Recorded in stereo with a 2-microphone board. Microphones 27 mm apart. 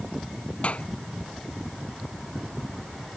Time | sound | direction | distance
0.6 | a clap | 50° left (ahead or behind) | ?